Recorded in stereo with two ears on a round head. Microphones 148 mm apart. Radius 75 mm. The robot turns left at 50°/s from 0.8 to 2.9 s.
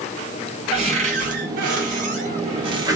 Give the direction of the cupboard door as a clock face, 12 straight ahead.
2 o'clock.